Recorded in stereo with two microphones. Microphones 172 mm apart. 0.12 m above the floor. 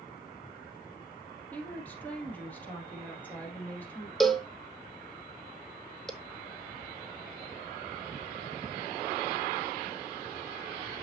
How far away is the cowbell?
About 0.9 m.